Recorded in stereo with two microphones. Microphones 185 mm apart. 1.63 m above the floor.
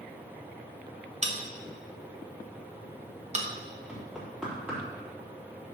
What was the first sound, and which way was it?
A bell, 35° right (ahead or behind).